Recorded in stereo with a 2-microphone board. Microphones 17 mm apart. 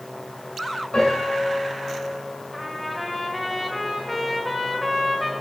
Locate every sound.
0.9 s a piano: 55° left (ahead or behind), 6 m
2.5 s a trumpet: 5° left (ahead or behind), 2 m